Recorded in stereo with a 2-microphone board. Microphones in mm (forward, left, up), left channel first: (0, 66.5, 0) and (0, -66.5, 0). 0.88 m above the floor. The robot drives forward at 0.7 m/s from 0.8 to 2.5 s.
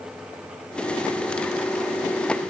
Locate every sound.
Only background noise.